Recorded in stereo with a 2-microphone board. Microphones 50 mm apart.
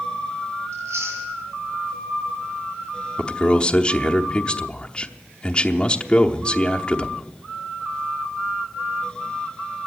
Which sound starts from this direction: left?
A man speaking, at 3.2 s.